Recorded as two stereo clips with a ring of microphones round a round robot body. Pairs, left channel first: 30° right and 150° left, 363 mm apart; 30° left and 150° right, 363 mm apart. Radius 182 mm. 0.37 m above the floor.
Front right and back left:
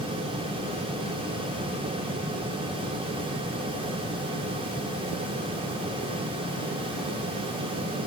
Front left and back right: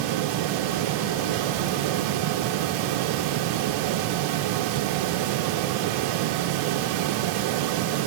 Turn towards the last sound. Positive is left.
No sound to turn to.